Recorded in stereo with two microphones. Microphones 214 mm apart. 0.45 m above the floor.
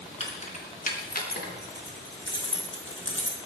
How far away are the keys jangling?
About 4 m.